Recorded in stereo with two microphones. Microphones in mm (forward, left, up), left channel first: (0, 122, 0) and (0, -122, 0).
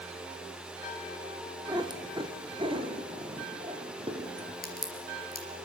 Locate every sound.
1.7 s a cat meowing: 15° right (ahead or behind), 1.5 m; by 4.5 s 25° right (ahead or behind), 3 m
4.6 s a crack: 35° left (ahead or behind), 3.5 m